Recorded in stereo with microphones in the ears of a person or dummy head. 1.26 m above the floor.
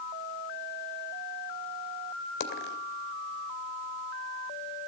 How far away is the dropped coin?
About 2 m.